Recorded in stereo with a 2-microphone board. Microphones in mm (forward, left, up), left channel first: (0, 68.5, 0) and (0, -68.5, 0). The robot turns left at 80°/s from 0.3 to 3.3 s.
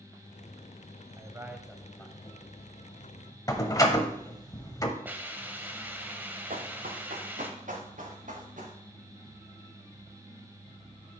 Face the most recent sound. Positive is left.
turn(degrees=-70)  # may be behind; listen again after turning